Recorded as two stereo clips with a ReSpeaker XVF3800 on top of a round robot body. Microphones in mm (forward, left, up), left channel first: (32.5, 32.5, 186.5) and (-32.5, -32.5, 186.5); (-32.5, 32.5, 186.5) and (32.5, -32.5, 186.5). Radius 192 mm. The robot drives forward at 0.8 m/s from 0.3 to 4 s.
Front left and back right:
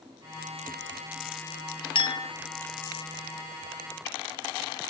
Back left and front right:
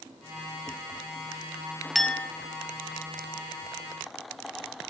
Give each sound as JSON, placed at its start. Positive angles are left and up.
{"t": 1.9, "sound": "a clink", "azimuth_deg": 45, "distance_m": 0.7}